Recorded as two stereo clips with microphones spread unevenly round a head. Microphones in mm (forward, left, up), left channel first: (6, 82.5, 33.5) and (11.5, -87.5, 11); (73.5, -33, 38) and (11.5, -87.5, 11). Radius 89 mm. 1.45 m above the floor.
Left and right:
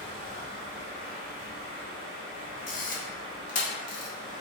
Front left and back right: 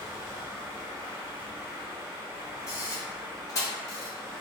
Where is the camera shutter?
80° left, 0.8 m.